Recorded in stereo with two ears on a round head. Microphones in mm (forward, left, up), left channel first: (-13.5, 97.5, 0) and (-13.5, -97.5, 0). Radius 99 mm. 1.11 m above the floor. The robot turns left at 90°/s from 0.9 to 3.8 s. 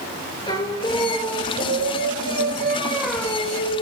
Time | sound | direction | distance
0.5 | singing | 20° left | 3.5 m